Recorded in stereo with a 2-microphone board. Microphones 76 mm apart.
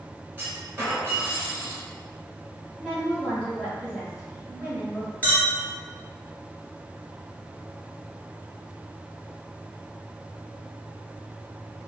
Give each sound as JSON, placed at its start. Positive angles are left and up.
{"t": 0.4, "sound": "a clunk", "side_deg": -25, "distance_m": 1.4}
{"t": 2.8, "sound": "a woman speaking", "side_deg": -5, "distance_m": 1.1}
{"t": 5.2, "sound": "a clink", "side_deg": 20, "distance_m": 1.1}